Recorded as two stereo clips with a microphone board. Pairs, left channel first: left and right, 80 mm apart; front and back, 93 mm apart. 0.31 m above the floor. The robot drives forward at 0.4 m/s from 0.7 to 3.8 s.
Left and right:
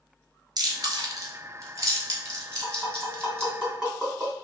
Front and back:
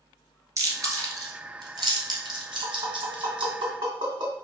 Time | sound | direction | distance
0.6 | chewing | 125° right | 1.2 m
2.6 | tapping | 175° right | 2.0 m